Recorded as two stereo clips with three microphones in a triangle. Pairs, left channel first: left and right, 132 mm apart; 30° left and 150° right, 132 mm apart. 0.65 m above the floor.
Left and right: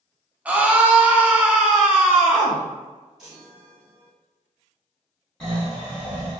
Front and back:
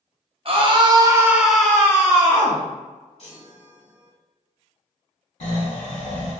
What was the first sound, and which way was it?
A scream, 165° right.